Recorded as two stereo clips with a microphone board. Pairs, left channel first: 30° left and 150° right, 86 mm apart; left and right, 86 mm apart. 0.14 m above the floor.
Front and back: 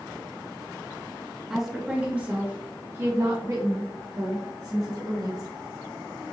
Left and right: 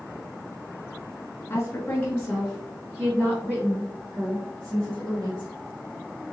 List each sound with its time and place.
1.5 s a woman speaking: 125° left, 1.6 m; by 5.5 s 130° right, 3 m